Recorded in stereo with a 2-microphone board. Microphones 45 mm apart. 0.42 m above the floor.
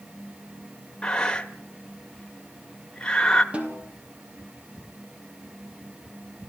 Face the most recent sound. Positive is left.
turn(degrees=-30)  # may be behind; listen again after turning